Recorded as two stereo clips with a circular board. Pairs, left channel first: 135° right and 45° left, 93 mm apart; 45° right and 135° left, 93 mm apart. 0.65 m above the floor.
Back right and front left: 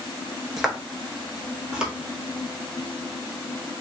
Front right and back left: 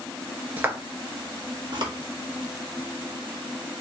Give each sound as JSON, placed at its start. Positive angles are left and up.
{"t": 0.6, "sound": "footsteps", "azimuth_deg": 130, "distance_m": 0.6}